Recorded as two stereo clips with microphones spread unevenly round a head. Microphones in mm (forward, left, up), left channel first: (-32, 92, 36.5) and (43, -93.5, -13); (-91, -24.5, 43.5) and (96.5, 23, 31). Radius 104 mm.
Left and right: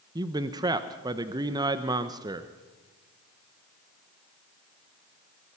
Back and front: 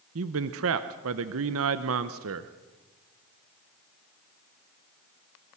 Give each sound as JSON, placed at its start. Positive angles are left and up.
{"t": 0.1, "sound": "a man speaking", "azimuth_deg": 5, "distance_m": 0.8}